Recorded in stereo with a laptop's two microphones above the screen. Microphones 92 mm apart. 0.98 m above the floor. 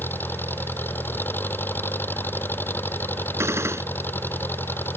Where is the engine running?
20° left (ahead or behind).